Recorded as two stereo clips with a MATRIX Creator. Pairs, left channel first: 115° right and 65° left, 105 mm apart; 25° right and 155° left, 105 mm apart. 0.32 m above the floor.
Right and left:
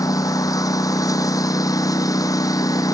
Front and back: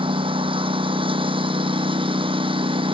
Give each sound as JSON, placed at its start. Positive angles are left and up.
{"t": 0.0, "sound": "a lawn mower", "azimuth_deg": -170}